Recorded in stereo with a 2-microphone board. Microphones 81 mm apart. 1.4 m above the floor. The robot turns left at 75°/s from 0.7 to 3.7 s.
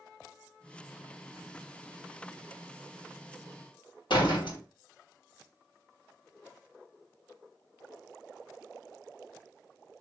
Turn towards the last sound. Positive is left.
turn(degrees=75)  # may be behind; listen again after turning